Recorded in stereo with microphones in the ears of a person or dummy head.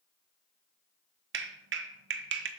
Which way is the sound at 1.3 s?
65° right (ahead or behind).